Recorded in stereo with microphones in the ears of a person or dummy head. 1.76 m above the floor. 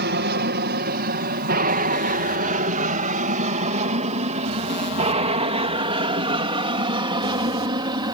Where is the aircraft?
50° right (ahead or behind); by 8.2 s 25° right (ahead or behind).